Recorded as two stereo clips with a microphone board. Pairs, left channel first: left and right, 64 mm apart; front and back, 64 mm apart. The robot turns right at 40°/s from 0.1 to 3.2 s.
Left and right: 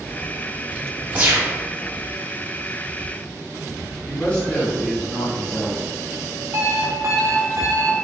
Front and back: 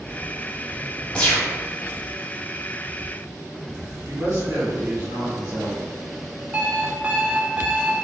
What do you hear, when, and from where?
1.1 s a gunshot: 55° right, 1.0 m; by 1.5 s 40° right, 1.0 m
4.0 s a woman speaking: 160° left, 1.5 m
6.5 s an alarm clock: 115° right, 0.5 m